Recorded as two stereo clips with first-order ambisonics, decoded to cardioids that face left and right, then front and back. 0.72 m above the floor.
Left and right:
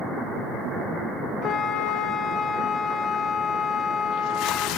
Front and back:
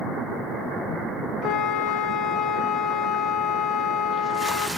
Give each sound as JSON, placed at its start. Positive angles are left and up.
{"t": 1.4, "sound": "a flute", "azimuth_deg": 40, "distance_m": 1.0}